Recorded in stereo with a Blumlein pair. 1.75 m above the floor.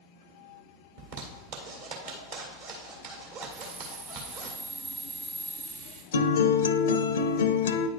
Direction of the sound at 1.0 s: 45° right.